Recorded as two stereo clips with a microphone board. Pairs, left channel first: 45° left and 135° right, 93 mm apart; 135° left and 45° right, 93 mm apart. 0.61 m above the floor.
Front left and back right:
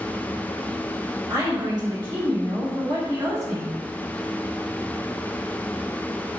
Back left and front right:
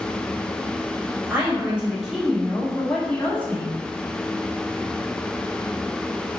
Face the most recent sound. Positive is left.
turn(degrees=-170)